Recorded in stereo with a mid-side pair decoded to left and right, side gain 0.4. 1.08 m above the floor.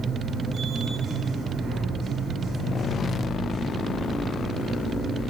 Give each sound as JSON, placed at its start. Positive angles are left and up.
{"t": 0.0, "sound": "a machine running", "azimuth_deg": -60, "distance_m": 4.5}